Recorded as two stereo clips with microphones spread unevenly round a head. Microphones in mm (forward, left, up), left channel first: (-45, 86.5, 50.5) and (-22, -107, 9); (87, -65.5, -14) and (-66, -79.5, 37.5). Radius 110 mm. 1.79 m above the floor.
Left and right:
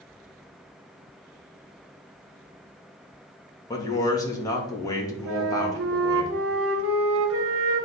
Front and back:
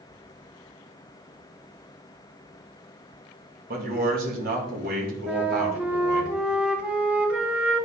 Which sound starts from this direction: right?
A flute, at 5.3 s.